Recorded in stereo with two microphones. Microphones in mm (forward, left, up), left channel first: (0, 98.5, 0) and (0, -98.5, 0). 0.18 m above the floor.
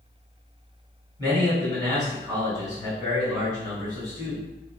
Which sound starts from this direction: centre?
A man speaking, at 1.2 s.